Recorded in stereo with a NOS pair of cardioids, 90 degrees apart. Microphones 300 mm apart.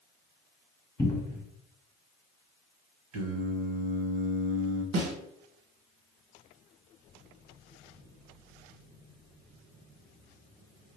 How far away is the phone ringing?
I don't hear a phone ringing.